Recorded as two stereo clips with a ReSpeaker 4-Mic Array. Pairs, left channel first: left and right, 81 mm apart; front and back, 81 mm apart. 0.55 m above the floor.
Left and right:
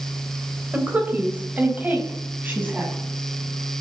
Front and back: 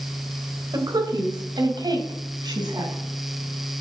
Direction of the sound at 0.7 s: 160° right.